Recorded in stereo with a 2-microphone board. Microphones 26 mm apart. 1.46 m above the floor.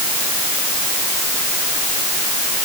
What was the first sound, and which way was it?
Only background noise.